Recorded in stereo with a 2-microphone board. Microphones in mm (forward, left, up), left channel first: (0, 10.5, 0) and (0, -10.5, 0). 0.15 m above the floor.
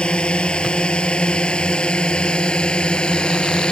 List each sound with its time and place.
0.0 s a drone: 60° left (ahead or behind); by 3.7 s 55° left (ahead or behind)